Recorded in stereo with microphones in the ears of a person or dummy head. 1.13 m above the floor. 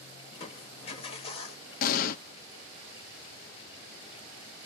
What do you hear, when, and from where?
0.3 s crushing: 35° left (ahead or behind), 0.9 m
1.8 s an explosion: 50° left (ahead or behind), 0.7 m